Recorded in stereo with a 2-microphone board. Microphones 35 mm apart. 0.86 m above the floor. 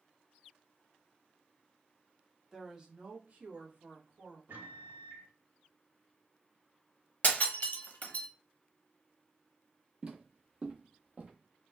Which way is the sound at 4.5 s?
65° right (ahead or behind).